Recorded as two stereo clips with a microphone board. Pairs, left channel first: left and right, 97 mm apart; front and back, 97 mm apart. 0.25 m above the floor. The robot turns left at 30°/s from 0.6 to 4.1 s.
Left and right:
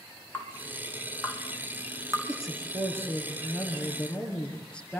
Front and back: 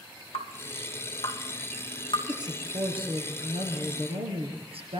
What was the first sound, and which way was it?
Dripping, 15° left.